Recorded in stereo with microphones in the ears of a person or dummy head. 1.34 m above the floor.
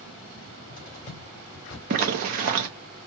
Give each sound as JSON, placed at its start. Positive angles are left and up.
{"t": 0.3, "sound": "a cupboard door", "side_deg": 40, "distance_m": 2.5}
{"t": 1.9, "sound": "a zipper", "side_deg": -45, "distance_m": 0.8}